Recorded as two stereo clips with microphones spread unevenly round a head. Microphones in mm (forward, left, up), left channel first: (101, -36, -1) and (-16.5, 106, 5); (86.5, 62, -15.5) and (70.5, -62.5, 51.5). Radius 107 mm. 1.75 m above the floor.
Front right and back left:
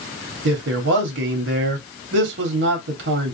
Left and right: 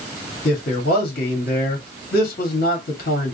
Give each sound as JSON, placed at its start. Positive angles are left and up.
{"t": 0.5, "sound": "a man speaking", "azimuth_deg": 115, "distance_m": 1.1}